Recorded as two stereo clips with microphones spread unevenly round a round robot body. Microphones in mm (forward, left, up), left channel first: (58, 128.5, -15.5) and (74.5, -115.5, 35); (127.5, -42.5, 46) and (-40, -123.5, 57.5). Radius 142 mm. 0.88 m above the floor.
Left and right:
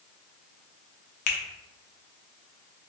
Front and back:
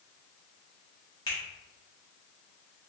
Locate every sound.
1.3 s a finger snap: 100° left, 0.7 m